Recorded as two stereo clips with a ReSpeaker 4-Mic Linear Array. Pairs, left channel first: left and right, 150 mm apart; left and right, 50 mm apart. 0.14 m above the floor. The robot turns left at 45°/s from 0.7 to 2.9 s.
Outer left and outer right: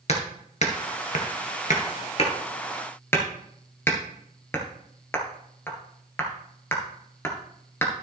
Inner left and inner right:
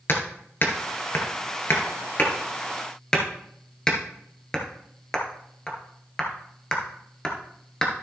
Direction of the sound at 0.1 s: 50° left (ahead or behind).